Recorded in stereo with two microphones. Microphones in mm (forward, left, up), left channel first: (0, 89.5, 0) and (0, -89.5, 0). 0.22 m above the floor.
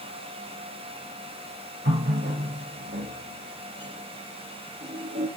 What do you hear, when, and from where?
1.9 s a running tap: 65° right (ahead or behind), 3.5 m